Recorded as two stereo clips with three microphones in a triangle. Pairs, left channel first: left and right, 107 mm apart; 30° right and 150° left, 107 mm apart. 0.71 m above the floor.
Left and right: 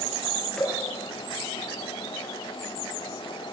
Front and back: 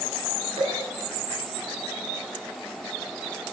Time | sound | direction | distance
0.6 | dripping | 170° left | 5.5 m